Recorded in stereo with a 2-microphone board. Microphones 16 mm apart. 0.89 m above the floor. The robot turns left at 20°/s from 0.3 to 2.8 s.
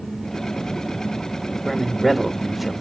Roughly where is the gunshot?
I don't hear a gunshot.